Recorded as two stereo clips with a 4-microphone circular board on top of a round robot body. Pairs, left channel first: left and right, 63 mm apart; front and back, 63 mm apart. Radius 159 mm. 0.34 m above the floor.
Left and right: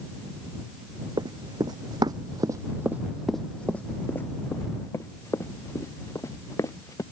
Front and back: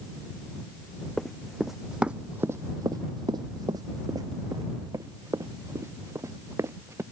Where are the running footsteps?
85° right; by 7.0 s 130° left.